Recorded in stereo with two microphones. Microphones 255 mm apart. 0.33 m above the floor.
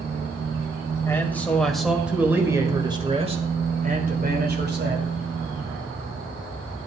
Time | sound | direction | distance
1.1 | a man speaking | 10° left (ahead or behind) | 1.8 m